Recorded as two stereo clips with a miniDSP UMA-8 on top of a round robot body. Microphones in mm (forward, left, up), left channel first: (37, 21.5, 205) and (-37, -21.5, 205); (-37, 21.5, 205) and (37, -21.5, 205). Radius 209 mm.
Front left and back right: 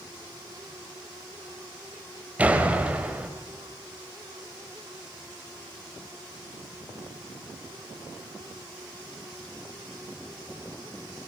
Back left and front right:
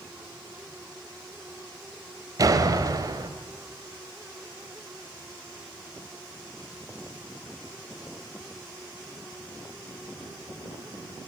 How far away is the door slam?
About 1.8 m.